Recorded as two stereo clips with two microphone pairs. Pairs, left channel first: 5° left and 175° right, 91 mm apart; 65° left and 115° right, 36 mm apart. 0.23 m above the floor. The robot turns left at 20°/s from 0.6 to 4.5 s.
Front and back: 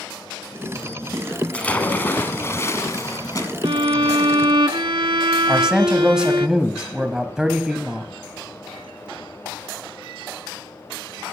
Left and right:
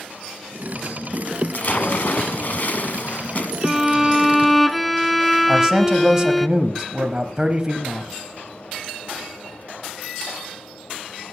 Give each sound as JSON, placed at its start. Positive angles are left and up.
{"t": 1.5, "sound": "a splash", "azimuth_deg": 75, "distance_m": 1.6}
{"t": 3.6, "sound": "a violin", "azimuth_deg": 170, "distance_m": 0.5}
{"t": 5.5, "sound": "a man speaking", "azimuth_deg": -100, "distance_m": 0.9}